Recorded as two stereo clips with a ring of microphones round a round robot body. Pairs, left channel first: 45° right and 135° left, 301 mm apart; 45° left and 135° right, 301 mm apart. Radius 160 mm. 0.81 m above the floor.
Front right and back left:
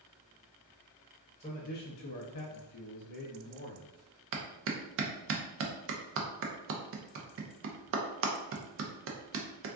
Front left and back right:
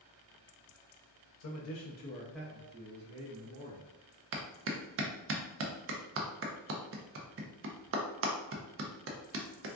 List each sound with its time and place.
1.4 s a man speaking: 20° left, 0.7 m; by 3.9 s 100° right, 1.1 m
4.3 s a clap: straight behind, 0.5 m